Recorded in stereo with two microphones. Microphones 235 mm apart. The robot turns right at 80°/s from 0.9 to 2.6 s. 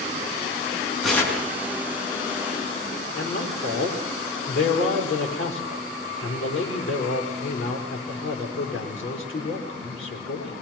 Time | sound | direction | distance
1.0 | tearing paper | straight ahead | 5 m
3.1 | a man speaking | 60° left (ahead or behind) | 4.5 m